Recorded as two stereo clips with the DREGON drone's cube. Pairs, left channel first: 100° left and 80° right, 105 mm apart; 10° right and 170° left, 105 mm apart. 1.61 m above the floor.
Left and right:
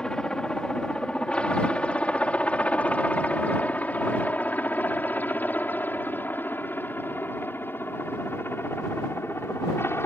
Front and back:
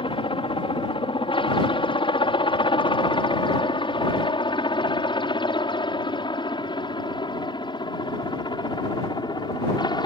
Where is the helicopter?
20° left; by 10.1 s 35° left.